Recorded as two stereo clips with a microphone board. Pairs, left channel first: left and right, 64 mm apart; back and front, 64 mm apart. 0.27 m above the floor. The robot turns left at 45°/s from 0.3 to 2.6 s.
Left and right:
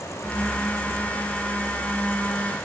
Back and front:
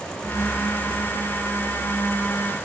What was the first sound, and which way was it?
Only background noise.